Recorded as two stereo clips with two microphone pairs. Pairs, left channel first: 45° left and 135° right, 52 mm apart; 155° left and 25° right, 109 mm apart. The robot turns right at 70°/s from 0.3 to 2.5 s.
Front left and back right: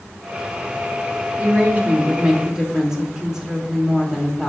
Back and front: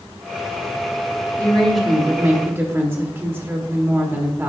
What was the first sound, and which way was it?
A woman speaking, 145° right.